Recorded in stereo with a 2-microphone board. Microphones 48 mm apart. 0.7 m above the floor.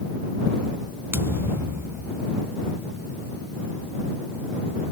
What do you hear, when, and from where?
1.1 s a thud: 55° right (ahead or behind)